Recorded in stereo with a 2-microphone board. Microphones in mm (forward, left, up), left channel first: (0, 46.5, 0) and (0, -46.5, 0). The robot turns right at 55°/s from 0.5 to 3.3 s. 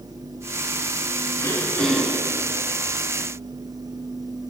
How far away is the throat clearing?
About 2.5 m.